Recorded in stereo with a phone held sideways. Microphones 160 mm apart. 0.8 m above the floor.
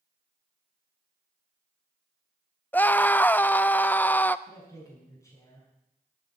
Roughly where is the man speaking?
Centre.